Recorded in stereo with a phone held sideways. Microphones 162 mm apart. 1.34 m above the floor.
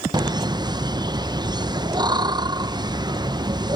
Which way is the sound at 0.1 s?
25° right (ahead or behind).